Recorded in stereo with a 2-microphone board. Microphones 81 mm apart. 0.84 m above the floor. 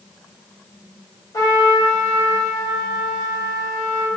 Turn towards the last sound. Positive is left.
turn(degrees=60)  # may be behind; listen again after turning